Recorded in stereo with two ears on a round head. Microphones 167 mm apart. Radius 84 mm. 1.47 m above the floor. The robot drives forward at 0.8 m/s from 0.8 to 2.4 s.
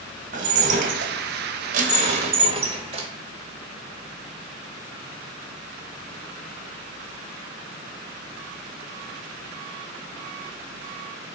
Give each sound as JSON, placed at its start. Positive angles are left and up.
{"t": 0.3, "sound": "dishes clattering", "side_deg": -45, "distance_m": 1.0}